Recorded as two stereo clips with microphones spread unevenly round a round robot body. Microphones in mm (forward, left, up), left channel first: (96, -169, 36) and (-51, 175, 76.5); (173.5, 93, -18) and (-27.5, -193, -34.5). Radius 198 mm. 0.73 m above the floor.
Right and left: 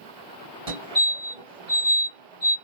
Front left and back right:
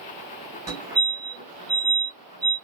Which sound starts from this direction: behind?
A fire alarm, at 0.7 s.